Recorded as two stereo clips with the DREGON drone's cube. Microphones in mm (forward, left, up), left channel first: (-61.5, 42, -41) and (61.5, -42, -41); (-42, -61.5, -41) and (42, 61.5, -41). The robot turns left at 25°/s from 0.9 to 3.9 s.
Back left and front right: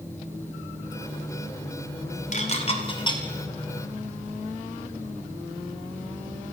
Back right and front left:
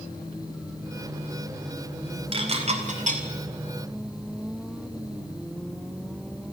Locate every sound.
2.3 s dishes clattering: 110° left, 2.5 m; by 3.2 s 85° left, 2.5 m